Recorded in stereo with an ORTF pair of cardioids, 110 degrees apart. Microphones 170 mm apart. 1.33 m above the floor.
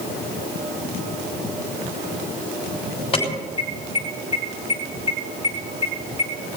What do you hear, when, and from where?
3.1 s an alarm: 30° left, 5.5 m